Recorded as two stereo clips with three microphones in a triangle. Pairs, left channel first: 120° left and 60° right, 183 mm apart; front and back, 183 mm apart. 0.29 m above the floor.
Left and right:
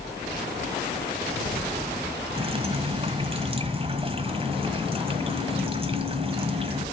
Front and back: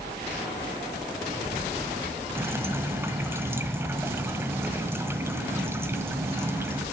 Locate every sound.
2.4 s dripping: 105° right, 1.3 m